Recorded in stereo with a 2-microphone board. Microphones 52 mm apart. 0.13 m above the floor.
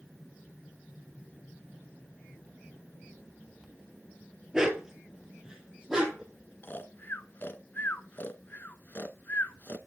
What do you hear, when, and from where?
4.5 s a dog barking: 15° right (ahead or behind), 1.1 m
6.6 s snoring: 40° left (ahead or behind), 0.6 m